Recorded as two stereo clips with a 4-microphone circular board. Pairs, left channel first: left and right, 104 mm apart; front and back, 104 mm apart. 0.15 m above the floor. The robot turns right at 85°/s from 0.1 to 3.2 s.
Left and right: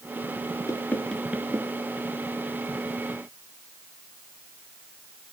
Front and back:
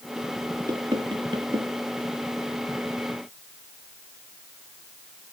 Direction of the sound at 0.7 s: 135° left.